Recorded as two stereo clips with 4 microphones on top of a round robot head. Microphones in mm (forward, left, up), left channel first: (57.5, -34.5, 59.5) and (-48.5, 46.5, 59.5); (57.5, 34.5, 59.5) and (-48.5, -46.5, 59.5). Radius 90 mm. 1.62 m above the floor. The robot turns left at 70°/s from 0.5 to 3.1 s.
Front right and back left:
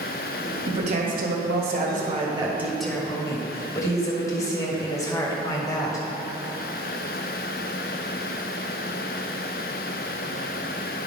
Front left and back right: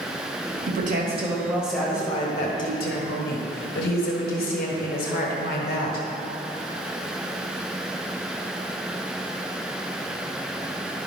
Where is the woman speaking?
160° right, 1.5 m; by 6.1 s 30° left, 1.5 m.